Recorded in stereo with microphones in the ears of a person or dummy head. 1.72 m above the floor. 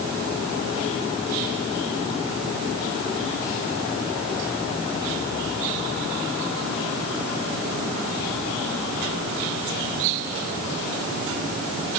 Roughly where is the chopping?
No chopping in this recording.